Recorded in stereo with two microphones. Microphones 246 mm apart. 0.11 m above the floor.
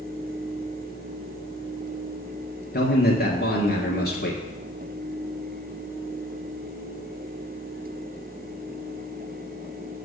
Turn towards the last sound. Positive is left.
turn(degrees=40)  # may be behind; listen again after turning